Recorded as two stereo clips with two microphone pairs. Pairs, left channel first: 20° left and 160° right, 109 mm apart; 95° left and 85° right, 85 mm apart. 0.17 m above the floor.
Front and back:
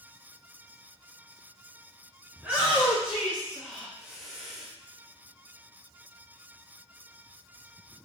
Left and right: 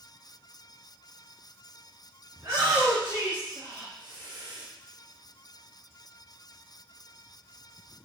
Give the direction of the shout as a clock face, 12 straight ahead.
3 o'clock.